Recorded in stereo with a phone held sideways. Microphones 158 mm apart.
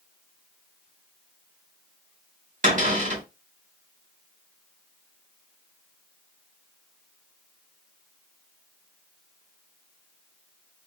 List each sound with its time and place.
2.6 s a cupboard door: 55° right (ahead or behind), 1.4 m